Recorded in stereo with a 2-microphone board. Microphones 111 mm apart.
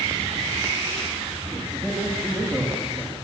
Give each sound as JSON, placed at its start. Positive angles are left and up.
{"t": 1.6, "sound": "a man speaking", "side_deg": -10, "distance_m": 8.5}